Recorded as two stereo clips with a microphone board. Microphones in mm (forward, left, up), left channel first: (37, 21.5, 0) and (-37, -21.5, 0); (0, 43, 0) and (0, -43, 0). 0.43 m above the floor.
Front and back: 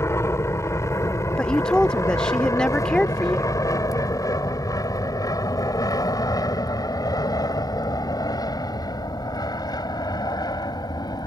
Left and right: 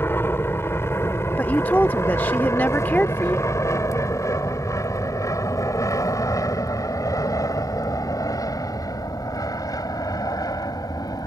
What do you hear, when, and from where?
0.0 s an aircraft: 55° left; by 11.3 s 60° left
1.4 s a woman speaking: 90° left